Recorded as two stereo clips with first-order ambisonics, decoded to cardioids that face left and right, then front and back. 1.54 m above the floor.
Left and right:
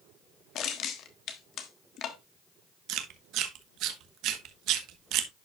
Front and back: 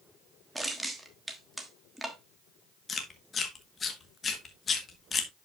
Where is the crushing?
95° left, 1.2 m.